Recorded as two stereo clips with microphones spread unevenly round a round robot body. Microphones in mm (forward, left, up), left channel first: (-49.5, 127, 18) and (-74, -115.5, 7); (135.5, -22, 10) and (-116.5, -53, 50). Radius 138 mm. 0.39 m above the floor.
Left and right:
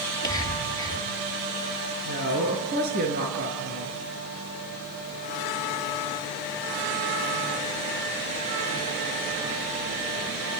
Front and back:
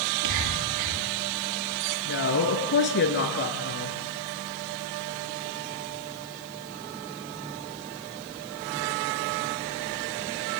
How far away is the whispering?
About 7.5 m.